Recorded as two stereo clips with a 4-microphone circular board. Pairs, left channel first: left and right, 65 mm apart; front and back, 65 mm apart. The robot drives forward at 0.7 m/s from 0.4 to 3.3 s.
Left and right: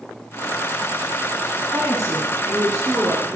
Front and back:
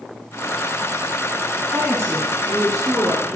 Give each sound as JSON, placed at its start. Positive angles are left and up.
{"t": 1.6, "sound": "a woman speaking", "azimuth_deg": -160, "distance_m": 1.9}